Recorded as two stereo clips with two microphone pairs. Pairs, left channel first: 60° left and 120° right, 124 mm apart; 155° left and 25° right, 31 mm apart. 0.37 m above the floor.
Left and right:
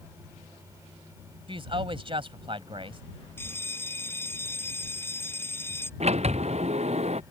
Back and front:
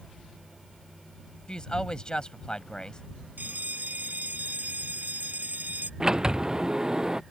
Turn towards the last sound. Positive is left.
turn(degrees=-95)